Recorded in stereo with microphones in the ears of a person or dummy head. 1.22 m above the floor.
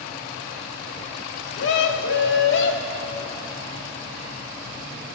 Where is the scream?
65° left (ahead or behind), 3 m.